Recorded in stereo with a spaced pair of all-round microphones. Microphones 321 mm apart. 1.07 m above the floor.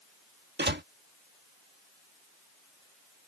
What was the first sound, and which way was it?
A door slam, 35° right (ahead or behind).